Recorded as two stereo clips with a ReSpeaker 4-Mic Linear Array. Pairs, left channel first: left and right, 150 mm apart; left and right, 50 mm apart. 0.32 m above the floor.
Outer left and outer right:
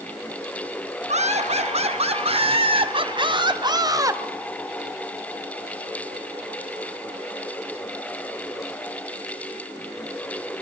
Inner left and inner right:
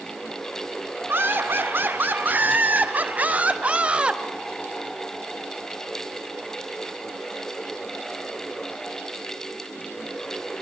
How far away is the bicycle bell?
I don't hear a bicycle bell.